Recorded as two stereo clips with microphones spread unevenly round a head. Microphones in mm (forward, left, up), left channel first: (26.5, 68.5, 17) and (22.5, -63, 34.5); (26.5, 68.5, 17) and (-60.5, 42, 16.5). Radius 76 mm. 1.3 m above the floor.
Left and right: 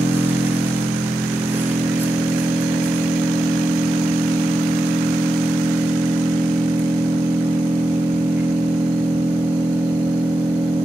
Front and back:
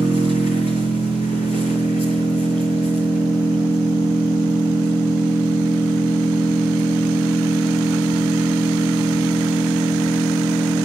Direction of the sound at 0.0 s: 15° right.